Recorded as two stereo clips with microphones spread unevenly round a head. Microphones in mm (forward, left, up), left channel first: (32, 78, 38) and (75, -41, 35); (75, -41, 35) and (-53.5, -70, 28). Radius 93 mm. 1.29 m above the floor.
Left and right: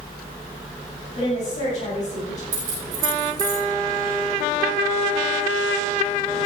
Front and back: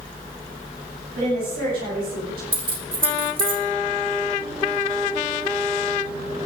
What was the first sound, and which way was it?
A woman speaking, 160° left.